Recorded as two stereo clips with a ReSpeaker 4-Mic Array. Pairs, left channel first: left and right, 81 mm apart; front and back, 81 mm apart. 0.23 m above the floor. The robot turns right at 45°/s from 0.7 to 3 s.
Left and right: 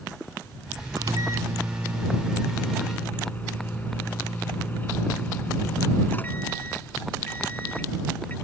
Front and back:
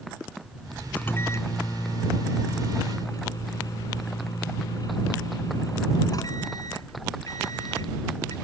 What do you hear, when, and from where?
1.0 s a microwave: 65° right; by 8.3 s 25° left